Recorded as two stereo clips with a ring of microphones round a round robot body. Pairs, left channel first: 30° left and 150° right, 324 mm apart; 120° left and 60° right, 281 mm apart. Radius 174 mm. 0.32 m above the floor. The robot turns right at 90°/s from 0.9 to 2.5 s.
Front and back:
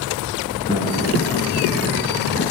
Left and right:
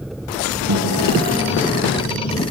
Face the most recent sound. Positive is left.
turn(degrees=95)